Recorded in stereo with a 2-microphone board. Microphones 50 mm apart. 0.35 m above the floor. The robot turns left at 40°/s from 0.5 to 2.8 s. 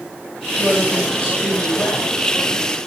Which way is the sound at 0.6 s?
160° left.